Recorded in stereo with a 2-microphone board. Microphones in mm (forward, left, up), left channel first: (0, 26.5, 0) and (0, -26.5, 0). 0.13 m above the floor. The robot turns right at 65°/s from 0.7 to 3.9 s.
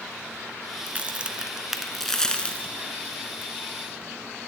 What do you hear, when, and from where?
0.9 s a crack: 30° right (ahead or behind), 0.7 m; by 3.5 s 30° left (ahead or behind), 0.7 m